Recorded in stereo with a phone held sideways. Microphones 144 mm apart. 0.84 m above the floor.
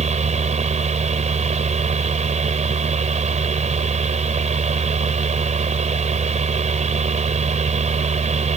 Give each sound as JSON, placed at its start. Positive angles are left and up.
{"t": 0.0, "sound": "a fan", "side_deg": -55}